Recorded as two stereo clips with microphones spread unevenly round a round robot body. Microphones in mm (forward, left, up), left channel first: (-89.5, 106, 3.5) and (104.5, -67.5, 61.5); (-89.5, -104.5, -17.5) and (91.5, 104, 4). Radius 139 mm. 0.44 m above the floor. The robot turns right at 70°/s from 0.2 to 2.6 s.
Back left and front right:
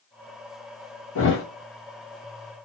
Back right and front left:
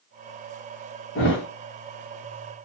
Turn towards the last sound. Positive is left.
turn(degrees=-90)